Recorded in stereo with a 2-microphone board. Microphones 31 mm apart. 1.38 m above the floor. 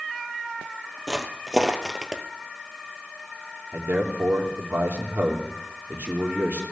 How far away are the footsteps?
About 2 m.